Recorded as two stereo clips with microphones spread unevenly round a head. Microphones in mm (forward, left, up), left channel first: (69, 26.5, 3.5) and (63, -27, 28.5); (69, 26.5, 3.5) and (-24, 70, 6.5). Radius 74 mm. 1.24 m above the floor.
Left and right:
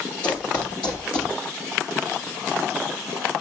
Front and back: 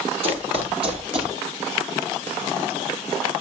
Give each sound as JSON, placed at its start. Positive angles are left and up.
{"t": 0.2, "sound": "running footsteps", "azimuth_deg": 175, "distance_m": 2.0}